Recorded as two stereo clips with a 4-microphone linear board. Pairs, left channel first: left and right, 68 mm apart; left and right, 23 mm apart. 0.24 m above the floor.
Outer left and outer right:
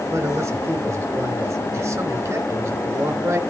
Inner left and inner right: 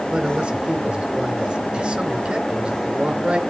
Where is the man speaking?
50° right (ahead or behind), 3.5 m.